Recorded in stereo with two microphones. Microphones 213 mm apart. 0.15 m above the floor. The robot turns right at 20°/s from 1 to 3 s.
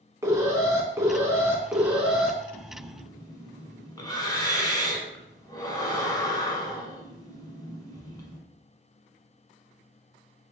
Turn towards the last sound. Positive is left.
turn(degrees=20)  # may be behind; listen again after turning